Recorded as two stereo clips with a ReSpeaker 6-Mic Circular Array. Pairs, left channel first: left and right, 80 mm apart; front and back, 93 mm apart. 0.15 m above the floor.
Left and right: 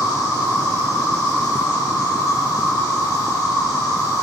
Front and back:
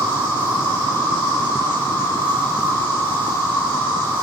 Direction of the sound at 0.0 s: 60° left.